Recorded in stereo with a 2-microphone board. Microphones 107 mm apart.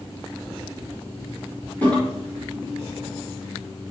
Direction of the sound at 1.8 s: 20° left (ahead or behind).